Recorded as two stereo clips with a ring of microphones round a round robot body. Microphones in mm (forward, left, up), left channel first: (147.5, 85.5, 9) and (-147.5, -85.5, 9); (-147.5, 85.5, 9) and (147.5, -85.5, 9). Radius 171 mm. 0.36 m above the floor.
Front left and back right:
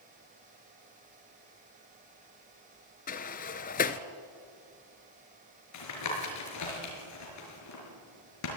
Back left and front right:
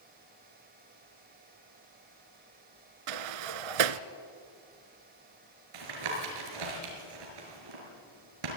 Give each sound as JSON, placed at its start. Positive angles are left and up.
{"t": 3.1, "sound": "a sliding door", "azimuth_deg": -35, "distance_m": 0.9}
{"t": 5.7, "sound": "tapping", "azimuth_deg": -10, "distance_m": 6.0}